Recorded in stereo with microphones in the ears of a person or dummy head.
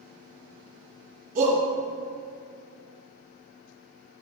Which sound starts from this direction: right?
A shout, at 1.4 s.